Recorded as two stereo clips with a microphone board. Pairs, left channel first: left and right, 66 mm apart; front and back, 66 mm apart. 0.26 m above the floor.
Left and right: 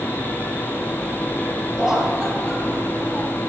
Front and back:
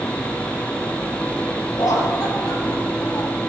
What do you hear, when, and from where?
1.8 s laughter: 10° right, 7.5 m; by 3.4 s 15° right, 8.5 m